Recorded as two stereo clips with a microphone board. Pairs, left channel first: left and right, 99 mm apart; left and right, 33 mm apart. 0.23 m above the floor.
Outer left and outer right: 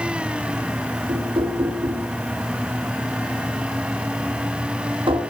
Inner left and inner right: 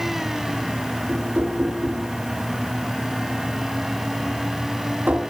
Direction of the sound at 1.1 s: 60° right (ahead or behind).